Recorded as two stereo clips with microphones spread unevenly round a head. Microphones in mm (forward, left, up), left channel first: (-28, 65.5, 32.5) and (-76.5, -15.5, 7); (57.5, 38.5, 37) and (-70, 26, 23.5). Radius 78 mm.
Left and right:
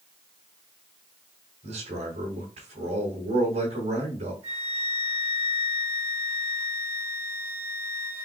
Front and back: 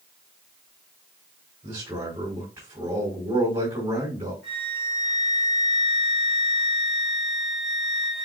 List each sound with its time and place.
1.6 s a man speaking: 105° right, 4.5 m
4.4 s a flute: 80° right, 4 m